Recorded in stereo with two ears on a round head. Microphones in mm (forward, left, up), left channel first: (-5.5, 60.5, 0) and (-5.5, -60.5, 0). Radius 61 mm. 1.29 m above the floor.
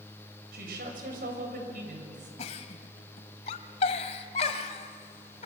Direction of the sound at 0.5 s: 85° right.